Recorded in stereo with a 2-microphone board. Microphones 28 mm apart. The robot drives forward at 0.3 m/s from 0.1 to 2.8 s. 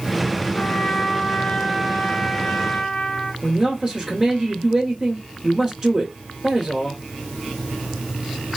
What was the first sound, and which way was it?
A trumpet, 45° left (ahead or behind).